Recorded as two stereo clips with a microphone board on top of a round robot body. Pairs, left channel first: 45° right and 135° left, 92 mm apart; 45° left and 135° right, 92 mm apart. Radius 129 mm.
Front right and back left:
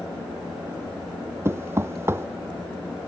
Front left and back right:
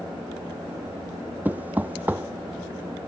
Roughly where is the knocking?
Behind.